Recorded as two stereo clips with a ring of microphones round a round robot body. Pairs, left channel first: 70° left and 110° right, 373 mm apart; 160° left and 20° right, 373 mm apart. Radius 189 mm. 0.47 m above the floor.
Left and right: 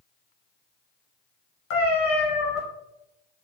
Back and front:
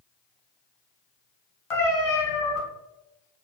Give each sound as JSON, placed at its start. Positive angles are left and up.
{"t": 1.7, "sound": "a cat meowing", "azimuth_deg": 125, "distance_m": 1.3}